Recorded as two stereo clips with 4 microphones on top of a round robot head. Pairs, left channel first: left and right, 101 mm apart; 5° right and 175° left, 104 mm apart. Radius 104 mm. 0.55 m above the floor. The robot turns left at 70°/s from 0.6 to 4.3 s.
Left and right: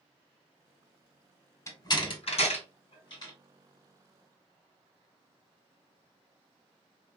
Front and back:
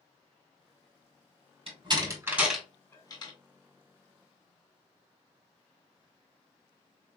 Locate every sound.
1.7 s a door slam: 150° left, 2.5 m; by 3.3 s 35° left, 2.5 m